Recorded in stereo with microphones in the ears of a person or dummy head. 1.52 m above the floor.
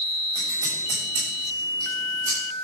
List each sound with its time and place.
0.3 s scissors: 20° right (ahead or behind), 6.5 m